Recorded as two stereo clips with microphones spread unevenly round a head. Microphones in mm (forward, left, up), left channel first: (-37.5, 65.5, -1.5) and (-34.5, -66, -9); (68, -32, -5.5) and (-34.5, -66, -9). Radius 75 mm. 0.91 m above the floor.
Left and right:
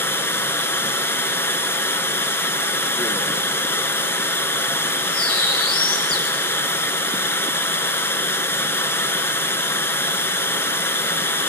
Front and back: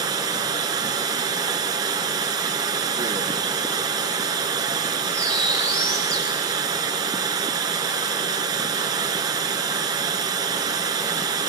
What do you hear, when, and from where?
0.0 s running water: 155° left, 1.1 m
5.1 s a bird: 100° left, 2.5 m